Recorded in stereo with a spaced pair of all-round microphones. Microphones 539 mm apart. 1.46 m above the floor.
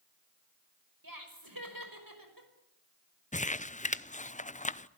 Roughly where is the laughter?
Right.